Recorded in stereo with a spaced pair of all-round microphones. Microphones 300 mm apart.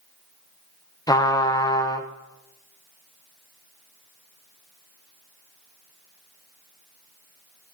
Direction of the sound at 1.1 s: 10° left (ahead or behind).